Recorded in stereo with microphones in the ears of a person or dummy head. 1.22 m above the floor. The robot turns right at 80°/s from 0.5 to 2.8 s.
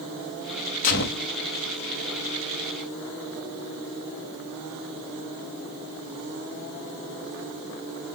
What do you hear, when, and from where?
0.8 s a gunshot: 45° left, 1.0 m; by 1.3 s 80° left, 1.0 m